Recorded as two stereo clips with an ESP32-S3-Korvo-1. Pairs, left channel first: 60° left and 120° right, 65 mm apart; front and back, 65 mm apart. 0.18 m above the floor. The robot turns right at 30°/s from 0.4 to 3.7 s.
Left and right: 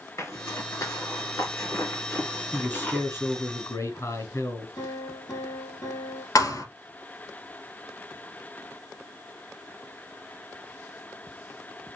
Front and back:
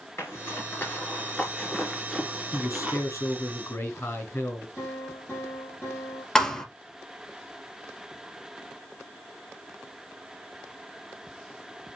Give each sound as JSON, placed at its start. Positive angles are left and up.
{"t": 0.2, "sound": "a zipper", "azimuth_deg": 35, "distance_m": 2.5}
{"t": 2.5, "sound": "a man speaking", "azimuth_deg": 10, "distance_m": 2.5}
{"t": 4.8, "sound": "a piano", "azimuth_deg": 50, "distance_m": 4.0}
{"t": 6.3, "sound": "a thud", "azimuth_deg": 80, "distance_m": 1.3}